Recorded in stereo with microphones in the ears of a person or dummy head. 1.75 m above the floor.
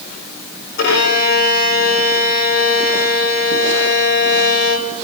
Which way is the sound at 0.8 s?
65° left (ahead or behind).